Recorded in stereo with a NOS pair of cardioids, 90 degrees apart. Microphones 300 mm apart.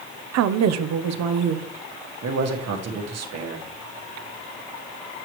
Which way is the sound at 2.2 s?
65° right.